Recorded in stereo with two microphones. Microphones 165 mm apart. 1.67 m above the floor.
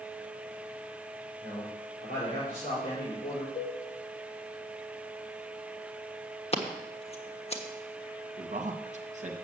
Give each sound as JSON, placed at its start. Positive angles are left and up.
{"t": 1.4, "sound": "a man speaking", "side_deg": 55, "distance_m": 5.0}
{"t": 3.5, "sound": "a cowbell", "side_deg": 55, "distance_m": 2.0}
{"t": 6.5, "sound": "scissors", "side_deg": 40, "distance_m": 1.1}
{"t": 8.4, "sound": "a man speaking", "side_deg": -45, "distance_m": 1.6}